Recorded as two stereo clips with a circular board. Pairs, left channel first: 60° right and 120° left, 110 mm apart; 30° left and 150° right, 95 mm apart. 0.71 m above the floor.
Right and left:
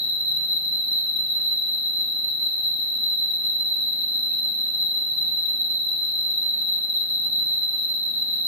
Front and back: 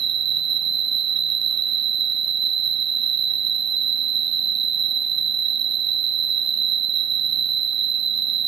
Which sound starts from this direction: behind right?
An insect, at 0.0 s.